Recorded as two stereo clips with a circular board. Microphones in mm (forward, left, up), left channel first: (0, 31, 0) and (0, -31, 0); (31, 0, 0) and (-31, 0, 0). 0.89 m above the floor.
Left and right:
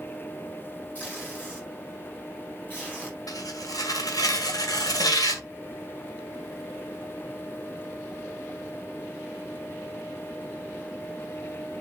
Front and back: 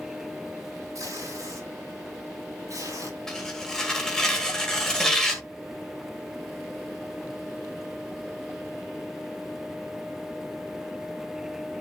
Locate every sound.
0.9 s tape being pulled: 150° left, 7.5 m
3.3 s tearing paper: 80° left, 1.8 m